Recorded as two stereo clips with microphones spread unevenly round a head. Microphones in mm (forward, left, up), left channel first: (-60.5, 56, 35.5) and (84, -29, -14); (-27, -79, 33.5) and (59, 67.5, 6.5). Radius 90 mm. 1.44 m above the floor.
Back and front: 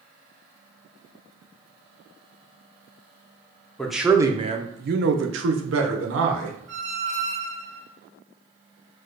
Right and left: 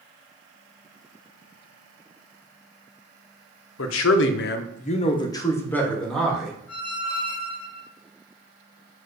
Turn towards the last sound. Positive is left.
turn(degrees=-25)